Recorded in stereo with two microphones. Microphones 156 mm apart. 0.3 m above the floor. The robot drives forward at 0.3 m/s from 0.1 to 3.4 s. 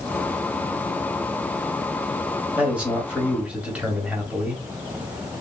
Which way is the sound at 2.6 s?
10° right (ahead or behind).